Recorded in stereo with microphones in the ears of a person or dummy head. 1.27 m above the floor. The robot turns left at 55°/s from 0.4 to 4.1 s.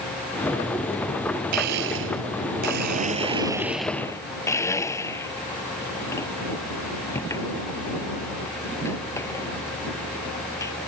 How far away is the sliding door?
No sliding door in this recording.